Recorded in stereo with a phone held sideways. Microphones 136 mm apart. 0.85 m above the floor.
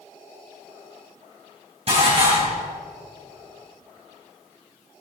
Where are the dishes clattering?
45° right (ahead or behind), 4 m.